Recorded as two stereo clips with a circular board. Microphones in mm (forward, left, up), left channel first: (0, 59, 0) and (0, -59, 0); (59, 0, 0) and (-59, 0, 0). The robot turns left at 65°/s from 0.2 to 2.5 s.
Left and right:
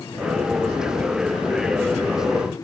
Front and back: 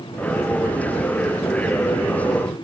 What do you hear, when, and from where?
Only background noise.